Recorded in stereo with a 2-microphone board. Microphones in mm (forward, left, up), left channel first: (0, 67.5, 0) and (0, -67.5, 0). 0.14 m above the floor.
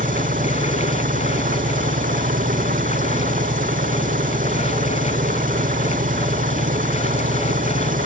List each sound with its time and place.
0.0 s an engine running: 80° right